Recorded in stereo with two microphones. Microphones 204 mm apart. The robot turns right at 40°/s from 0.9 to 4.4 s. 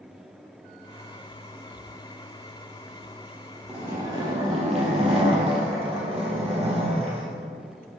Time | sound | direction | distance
3.7 | a zipper | 5° right (ahead or behind) | 2 m